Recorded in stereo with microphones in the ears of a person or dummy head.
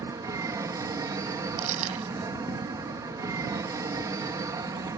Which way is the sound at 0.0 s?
20° right (ahead or behind).